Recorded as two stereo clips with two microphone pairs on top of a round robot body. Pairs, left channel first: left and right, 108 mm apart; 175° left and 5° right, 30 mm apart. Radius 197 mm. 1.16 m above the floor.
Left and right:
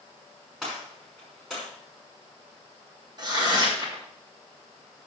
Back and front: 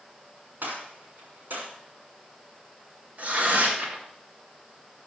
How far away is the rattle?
I don't hear a rattle.